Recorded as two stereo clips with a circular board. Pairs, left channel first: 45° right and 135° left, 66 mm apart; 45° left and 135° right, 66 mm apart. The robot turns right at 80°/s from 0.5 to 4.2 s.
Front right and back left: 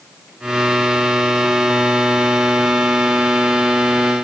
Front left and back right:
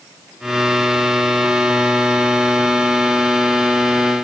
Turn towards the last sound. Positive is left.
No sound to turn to.